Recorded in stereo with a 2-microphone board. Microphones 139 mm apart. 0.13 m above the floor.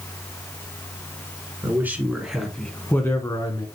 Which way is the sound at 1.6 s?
20° right (ahead or behind).